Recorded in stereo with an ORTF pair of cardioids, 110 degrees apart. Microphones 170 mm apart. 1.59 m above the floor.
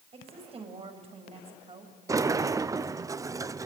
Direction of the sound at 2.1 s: 20° right.